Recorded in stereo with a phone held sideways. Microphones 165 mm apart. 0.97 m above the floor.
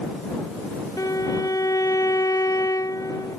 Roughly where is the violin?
Left.